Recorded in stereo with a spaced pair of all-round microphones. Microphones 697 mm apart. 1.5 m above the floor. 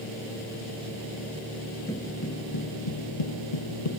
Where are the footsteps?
5° left (ahead or behind), 1.5 m; by 3.9 s 60° left (ahead or behind), 3 m.